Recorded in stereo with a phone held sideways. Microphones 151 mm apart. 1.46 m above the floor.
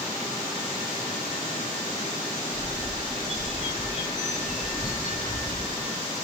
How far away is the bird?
About 1.8 m.